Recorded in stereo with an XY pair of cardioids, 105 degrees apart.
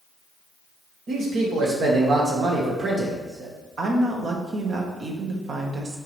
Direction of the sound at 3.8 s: 55° right.